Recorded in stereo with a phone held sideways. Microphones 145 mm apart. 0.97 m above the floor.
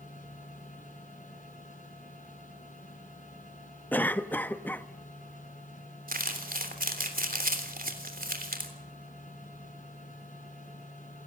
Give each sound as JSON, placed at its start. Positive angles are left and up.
{"t": 0.0, "sound": "a machine running", "side_deg": 60, "distance_m": 5.5}
{"t": 3.9, "sound": "a cough", "side_deg": 10, "distance_m": 1.0}
{"t": 6.1, "sound": "crumpling", "side_deg": -80, "distance_m": 3.0}